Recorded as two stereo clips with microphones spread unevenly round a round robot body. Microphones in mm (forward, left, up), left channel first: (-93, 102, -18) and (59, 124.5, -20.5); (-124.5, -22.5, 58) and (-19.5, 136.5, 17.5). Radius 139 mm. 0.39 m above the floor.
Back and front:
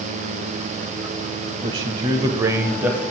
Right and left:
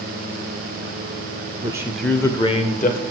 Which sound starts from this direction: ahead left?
A man speaking, at 1.6 s.